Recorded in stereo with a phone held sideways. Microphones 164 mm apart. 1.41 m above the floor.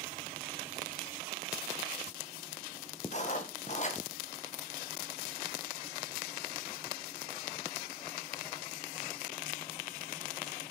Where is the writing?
45° left (ahead or behind), 1.5 m.